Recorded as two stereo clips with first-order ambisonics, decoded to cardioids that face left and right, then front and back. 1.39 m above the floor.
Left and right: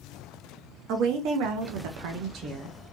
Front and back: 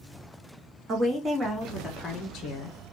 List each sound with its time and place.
0.9 s a woman speaking: 120° right, 0.9 m; by 2.8 s 30° right, 0.6 m